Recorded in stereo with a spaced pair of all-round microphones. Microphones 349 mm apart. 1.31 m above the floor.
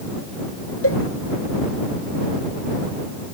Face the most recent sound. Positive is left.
turn(degrees=40)  # may be behind; listen again after turning